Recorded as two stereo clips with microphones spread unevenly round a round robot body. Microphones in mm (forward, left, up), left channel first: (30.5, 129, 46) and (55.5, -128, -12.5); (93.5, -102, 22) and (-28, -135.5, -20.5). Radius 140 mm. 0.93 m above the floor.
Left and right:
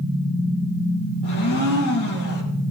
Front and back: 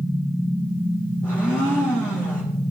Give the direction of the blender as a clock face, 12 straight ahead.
9 o'clock.